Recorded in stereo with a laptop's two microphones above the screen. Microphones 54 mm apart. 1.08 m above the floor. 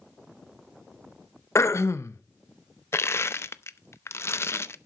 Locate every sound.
1.6 s throat clearing: 65° left (ahead or behind), 0.7 m
2.9 s crushing: 55° left (ahead or behind), 0.6 m